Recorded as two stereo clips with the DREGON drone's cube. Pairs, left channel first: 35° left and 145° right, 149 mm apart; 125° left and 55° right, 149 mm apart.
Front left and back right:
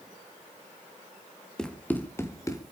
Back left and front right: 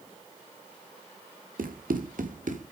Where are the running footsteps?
50° right, 2.5 m; by 2.6 s 30° right, 3 m.